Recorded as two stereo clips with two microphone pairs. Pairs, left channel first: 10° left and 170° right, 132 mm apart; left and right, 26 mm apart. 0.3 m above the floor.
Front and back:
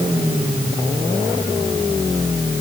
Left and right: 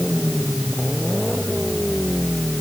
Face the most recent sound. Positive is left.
No sound to turn to.